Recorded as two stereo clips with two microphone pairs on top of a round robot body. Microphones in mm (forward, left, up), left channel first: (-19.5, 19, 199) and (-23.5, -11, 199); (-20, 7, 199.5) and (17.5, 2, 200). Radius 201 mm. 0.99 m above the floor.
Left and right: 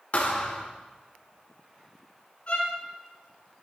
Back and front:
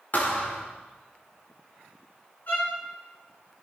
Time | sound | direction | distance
0.1 | a thud | 130° left | 1.4 m
2.5 | a violin | 130° left | 4 m